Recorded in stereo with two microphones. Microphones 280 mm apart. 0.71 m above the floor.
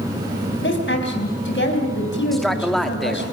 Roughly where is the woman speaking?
Left.